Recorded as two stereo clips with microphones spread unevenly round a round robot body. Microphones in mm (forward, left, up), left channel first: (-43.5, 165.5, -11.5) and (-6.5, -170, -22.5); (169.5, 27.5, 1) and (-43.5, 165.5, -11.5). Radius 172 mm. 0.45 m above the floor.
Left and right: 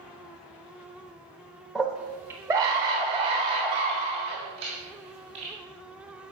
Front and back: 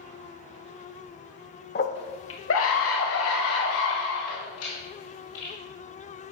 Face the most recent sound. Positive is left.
turn(degrees=-10)